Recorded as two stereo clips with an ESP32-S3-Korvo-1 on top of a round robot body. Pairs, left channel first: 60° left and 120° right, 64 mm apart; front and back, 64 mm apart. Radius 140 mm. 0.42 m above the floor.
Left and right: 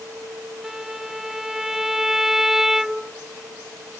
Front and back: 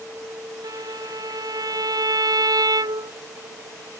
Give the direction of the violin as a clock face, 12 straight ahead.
7 o'clock.